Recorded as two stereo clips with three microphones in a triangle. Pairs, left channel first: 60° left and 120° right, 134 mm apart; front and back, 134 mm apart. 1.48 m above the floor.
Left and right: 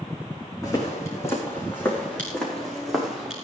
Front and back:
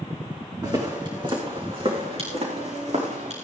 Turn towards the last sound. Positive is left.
turn(degrees=155)